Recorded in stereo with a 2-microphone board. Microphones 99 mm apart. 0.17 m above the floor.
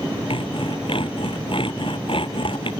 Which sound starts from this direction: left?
Sawing, at 0.3 s.